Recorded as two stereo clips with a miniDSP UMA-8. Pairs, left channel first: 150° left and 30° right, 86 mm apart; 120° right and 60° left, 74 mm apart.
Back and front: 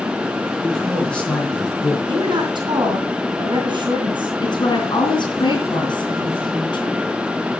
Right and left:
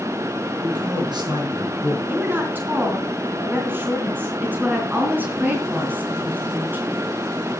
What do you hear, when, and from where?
0.6 s a man speaking: 65° left, 5.5 m; by 2.0 s 85° left, 6.5 m
2.1 s a woman speaking: 5° right, 3.5 m
4.4 s a woman speaking: 125° left, 4 m